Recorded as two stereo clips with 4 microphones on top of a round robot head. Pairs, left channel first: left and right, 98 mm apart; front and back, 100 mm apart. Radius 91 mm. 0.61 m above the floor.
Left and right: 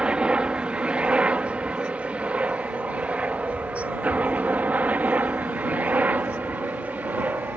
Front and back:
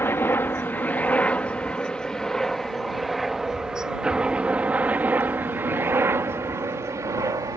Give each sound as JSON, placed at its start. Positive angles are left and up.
{"t": 0.0, "sound": "a helicopter", "azimuth_deg": -25}